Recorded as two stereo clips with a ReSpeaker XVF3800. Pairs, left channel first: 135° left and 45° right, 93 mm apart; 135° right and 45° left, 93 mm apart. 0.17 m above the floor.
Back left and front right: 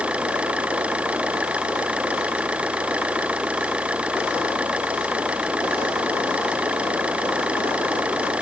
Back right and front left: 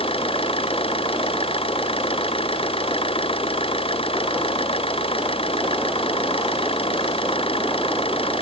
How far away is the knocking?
No knocking in this recording.